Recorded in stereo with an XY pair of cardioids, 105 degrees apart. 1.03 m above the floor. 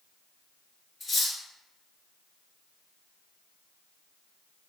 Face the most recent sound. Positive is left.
turn(degrees=40)